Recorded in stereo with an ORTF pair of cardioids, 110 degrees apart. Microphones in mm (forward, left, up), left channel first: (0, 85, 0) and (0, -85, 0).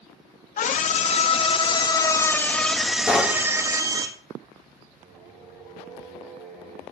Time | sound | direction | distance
0.6 | a scream | 50° left | 1.7 m
3.1 | knocking | 5° left | 1.7 m
5.0 | singing | 65° right | 4.5 m